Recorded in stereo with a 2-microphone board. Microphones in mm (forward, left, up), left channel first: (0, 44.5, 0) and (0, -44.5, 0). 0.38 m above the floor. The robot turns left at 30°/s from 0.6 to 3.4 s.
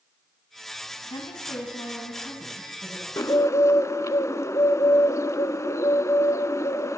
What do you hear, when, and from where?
1.1 s a woman speaking: 70° left, 3 m; by 3.1 s 10° left, 3 m
3.2 s a bird: 40° left (ahead or behind), 0.5 m; by 7.0 s 35° left (ahead or behind), 0.5 m